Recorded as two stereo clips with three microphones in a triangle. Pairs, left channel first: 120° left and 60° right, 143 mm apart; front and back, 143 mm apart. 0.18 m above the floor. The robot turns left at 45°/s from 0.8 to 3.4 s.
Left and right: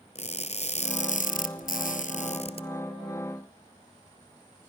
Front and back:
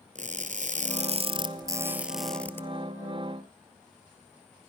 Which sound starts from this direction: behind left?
Crushing, at 0.1 s.